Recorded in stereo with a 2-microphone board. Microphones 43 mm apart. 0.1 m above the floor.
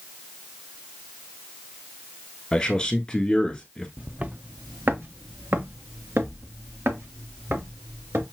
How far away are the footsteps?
About 0.8 m.